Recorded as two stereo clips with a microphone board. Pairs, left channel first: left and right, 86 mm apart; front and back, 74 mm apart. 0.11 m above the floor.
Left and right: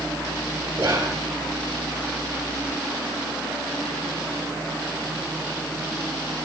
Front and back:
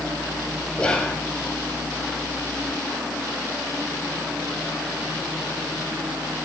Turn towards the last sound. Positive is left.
turn(degrees=-65)